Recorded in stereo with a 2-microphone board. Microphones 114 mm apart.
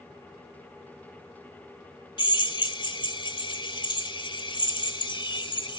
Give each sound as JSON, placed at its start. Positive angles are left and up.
{"t": 2.2, "sound": "a drill", "side_deg": 45, "distance_m": 1.1}